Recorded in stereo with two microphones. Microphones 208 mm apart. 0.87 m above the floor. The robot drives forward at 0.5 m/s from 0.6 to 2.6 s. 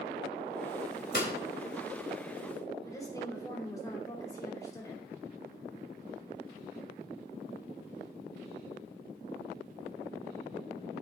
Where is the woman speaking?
15° left (ahead or behind), 2.5 m.